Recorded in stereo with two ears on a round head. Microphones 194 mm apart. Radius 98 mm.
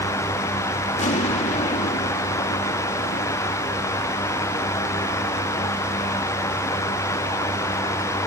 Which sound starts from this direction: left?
An explosion, at 1.0 s.